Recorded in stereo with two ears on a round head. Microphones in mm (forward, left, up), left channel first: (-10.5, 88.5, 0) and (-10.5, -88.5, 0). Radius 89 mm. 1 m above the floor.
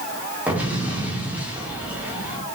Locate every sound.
0.5 s an explosion: 10° right (ahead or behind), 3 m